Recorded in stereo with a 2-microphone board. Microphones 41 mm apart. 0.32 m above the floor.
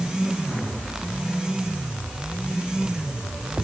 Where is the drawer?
No drawer in this recording.